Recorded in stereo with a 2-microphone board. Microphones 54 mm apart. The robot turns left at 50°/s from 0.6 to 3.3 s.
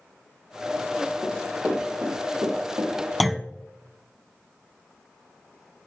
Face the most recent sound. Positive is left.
turn(degrees=0)  # may be behind; listen again after turning